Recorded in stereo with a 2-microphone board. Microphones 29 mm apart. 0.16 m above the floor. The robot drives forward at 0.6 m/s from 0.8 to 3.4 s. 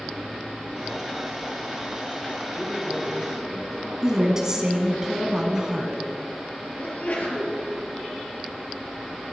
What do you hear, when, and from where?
2.5 s a man speaking: 5° left (ahead or behind), 3.5 m
4.0 s a woman speaking: 20° right (ahead or behind), 1.4 m
6.8 s a sneeze: 55° left (ahead or behind), 2.5 m